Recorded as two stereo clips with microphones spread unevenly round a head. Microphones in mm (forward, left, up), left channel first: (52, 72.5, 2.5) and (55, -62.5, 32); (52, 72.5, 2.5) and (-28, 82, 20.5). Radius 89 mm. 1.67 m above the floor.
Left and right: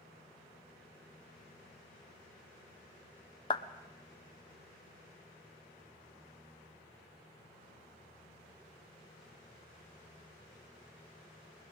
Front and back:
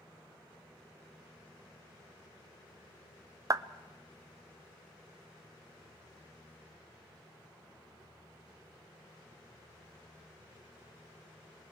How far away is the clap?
About 0.6 m.